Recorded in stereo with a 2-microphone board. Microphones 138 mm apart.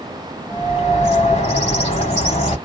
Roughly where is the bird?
Left.